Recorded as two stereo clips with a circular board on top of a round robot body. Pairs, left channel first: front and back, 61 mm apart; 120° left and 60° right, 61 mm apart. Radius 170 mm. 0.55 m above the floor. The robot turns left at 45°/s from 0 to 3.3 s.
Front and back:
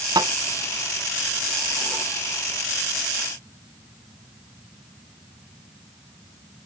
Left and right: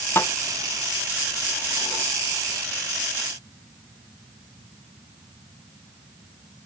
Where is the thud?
175° left; by 2.0 s 85° left.